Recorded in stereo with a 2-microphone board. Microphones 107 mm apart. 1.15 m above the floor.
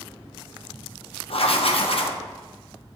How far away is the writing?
About 0.7 m.